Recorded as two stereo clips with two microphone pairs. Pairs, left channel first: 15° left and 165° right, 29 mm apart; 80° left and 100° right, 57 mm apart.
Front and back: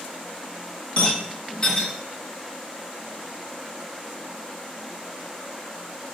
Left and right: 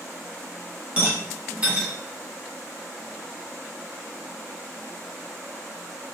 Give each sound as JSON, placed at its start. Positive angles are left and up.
{"t": 1.0, "sound": "a rattle", "azimuth_deg": -40, "distance_m": 1.4}